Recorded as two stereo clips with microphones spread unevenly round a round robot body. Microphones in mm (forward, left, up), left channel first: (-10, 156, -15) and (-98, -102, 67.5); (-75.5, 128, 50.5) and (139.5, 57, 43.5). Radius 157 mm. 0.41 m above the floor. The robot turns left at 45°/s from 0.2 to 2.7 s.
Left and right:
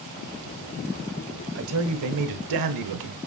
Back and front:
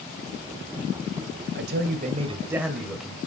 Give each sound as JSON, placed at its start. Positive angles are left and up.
{"t": 1.6, "sound": "a man speaking", "azimuth_deg": -55, "distance_m": 1.6}